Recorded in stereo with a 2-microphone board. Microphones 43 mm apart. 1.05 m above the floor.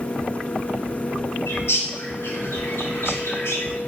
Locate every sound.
1.5 s a bird: 70° left (ahead or behind), 0.7 m